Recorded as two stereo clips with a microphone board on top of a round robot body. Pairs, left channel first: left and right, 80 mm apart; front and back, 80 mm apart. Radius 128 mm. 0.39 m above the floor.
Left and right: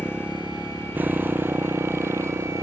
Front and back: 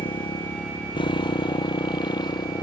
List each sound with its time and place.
0.0 s a motorcycle: 10° right; by 2.6 s 35° right